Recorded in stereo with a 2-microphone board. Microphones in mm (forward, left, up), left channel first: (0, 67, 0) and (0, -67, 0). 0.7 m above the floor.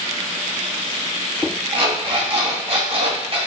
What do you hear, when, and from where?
1.7 s an alarm clock: 45° right (ahead or behind), 3 m